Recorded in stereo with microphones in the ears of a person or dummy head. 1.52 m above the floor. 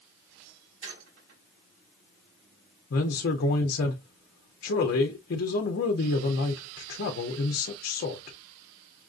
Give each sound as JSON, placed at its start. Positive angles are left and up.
{"t": 0.8, "sound": "a squeak", "side_deg": -70, "distance_m": 3.5}
{"t": 2.9, "sound": "a man speaking", "side_deg": 50, "distance_m": 0.6}